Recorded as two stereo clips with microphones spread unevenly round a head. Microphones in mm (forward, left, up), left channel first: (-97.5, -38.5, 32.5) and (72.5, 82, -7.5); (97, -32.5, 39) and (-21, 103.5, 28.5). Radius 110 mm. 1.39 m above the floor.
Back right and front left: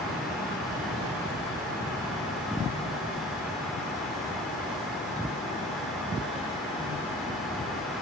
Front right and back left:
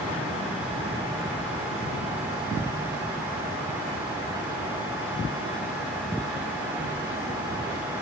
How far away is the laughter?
I don't hear laughter.